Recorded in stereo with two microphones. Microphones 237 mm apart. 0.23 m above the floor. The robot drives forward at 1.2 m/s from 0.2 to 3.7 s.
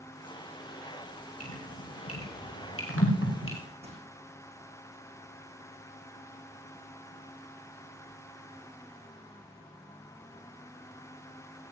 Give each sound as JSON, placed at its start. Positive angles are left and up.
{"t": 1.4, "sound": "dripping", "side_deg": 80, "distance_m": 7.5}
{"t": 3.8, "sound": "crushing", "side_deg": -25, "distance_m": 5.0}